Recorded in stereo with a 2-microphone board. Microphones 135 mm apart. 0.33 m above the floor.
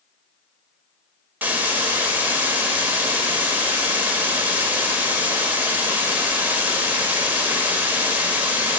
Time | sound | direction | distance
1.4 | a hiss | 15° right (ahead or behind) | 0.8 m